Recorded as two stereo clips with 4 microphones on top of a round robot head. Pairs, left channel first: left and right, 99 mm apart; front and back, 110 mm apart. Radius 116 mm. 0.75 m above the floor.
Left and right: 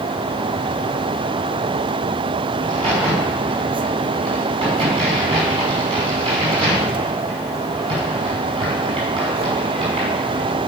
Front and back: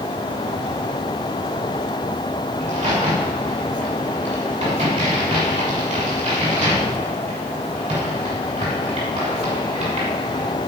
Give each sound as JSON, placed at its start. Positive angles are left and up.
{"t": 2.6, "sound": "a crack", "azimuth_deg": -130, "distance_m": 6.0}